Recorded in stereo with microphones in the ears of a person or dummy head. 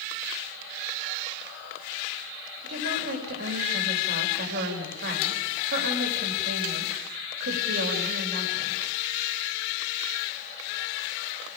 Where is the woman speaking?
60° right (ahead or behind), 4 m.